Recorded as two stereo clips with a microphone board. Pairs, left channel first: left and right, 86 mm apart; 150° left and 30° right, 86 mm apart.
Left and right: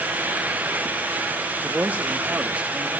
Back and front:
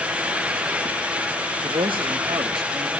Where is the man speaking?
20° right, 1.2 m; by 2.9 s 15° right, 2 m.